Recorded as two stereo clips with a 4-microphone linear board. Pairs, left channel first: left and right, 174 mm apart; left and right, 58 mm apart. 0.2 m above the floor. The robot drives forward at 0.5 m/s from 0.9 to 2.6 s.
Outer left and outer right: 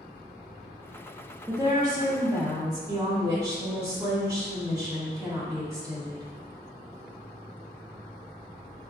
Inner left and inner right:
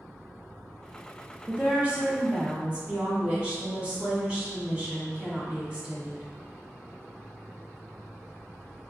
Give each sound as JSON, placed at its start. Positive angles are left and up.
{"t": 1.5, "sound": "a woman speaking", "side_deg": -25, "distance_m": 1.0}